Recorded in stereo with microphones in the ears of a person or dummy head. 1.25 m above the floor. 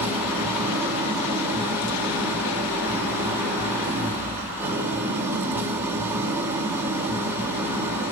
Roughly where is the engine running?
Centre.